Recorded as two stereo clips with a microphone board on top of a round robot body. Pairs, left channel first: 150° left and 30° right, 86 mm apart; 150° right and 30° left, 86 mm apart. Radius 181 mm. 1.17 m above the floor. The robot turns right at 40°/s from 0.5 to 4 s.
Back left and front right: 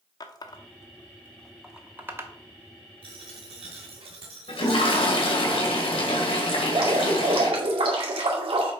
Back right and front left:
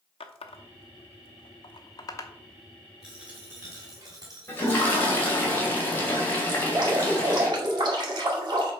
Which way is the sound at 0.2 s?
160° right.